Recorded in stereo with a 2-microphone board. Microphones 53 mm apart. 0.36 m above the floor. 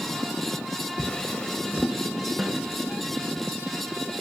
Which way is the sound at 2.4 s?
10° right (ahead or behind).